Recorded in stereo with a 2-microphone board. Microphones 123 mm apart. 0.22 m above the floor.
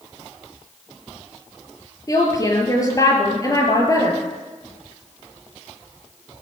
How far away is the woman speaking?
About 4.5 m.